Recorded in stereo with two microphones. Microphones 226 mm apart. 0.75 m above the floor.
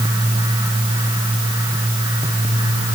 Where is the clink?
No clink in this recording.